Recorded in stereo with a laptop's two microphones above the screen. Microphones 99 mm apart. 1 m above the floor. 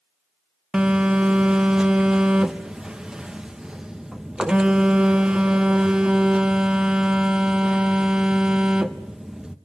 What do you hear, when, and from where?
0.7 s a phone buzzing: 10° right (ahead or behind), 0.7 m